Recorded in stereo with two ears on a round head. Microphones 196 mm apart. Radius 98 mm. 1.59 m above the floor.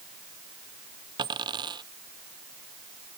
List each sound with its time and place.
1.2 s a dropped coin: 20° right (ahead or behind)